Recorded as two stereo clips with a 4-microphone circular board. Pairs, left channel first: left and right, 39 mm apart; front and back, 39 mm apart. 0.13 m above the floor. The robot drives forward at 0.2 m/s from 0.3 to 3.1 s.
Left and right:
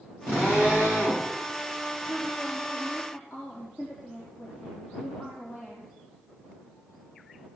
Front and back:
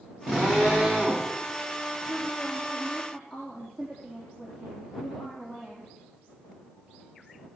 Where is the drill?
110° left, 9 m.